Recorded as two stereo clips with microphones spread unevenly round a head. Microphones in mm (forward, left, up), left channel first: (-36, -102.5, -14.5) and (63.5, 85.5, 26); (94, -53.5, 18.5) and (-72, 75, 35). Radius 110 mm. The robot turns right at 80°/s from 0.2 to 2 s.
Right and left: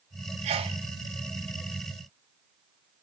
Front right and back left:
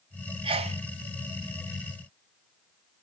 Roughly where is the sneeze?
Left.